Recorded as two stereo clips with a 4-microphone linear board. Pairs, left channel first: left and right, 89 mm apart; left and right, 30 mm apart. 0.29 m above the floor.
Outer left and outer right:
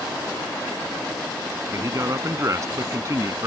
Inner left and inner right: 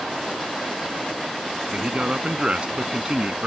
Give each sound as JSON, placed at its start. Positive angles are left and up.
{"t": 1.7, "sound": "a man speaking", "side_deg": -40}